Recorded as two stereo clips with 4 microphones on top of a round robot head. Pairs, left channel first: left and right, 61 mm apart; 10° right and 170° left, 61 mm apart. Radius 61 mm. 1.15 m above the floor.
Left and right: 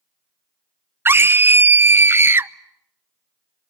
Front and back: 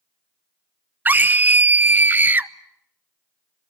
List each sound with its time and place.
1.1 s a scream: 135° right, 0.8 m